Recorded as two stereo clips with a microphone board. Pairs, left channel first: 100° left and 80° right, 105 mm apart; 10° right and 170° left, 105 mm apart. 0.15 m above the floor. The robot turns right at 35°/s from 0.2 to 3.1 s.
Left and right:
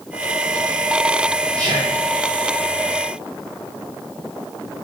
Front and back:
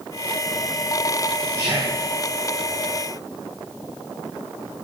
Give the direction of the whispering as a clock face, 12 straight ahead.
5 o'clock.